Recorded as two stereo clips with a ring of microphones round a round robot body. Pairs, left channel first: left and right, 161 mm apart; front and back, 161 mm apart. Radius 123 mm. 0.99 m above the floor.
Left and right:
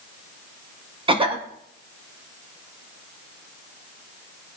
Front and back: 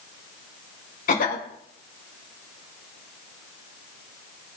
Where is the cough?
35° right, 1.9 m.